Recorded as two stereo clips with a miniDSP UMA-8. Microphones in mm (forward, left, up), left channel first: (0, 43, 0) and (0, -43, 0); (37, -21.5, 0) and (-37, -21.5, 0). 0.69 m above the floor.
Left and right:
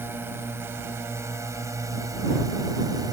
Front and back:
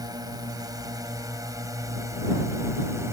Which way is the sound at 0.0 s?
155° right.